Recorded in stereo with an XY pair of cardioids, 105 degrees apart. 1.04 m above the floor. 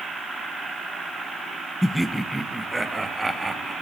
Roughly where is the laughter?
Ahead.